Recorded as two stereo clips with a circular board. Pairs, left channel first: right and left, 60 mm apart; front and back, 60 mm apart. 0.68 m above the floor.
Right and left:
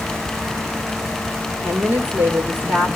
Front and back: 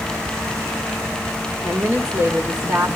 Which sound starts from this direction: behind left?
A woman speaking, at 1.6 s.